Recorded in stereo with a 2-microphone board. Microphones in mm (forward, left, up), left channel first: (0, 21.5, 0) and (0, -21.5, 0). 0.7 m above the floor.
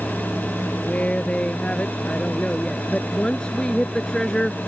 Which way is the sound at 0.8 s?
30° left (ahead or behind).